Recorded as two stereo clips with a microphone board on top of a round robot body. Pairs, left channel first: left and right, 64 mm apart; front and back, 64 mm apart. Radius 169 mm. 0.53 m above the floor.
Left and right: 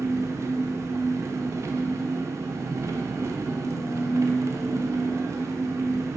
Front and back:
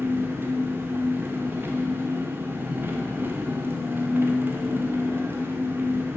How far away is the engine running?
About 0.8 m.